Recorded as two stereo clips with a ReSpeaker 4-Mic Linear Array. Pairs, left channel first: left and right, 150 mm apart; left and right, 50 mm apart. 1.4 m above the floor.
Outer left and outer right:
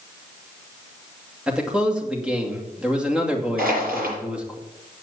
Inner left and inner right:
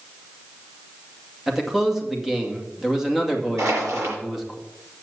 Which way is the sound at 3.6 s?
80° right.